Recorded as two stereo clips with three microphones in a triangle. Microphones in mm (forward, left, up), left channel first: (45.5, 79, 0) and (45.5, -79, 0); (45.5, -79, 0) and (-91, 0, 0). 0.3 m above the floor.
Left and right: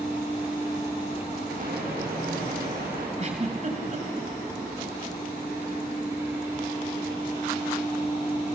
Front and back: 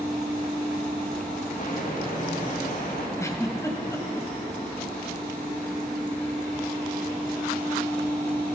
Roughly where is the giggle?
Right.